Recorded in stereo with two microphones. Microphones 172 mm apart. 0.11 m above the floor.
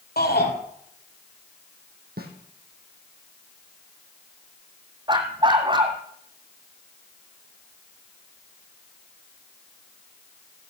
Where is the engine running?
No engine running in this recording.